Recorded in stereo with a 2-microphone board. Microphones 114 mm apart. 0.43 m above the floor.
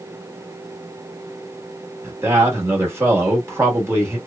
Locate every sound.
2.0 s a man speaking: 25° right (ahead or behind), 1.1 m